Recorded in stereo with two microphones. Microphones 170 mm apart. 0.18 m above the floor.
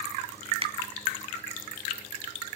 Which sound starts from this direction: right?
A finger snap, at 0.6 s.